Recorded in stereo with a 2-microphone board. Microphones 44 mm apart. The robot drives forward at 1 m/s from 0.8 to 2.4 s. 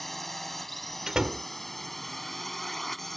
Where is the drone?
5° left (ahead or behind).